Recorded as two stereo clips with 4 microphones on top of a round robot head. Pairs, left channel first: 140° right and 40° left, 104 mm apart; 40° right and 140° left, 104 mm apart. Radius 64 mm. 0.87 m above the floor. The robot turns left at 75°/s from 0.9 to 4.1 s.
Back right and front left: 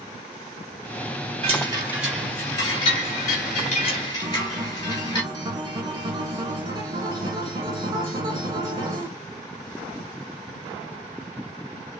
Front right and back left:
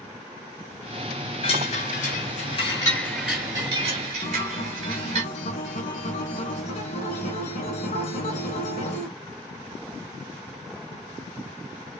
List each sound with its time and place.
1.4 s a chime: straight ahead, 3 m; by 5.2 s 160° left, 3 m
4.2 s a guitar: 20° right, 1.8 m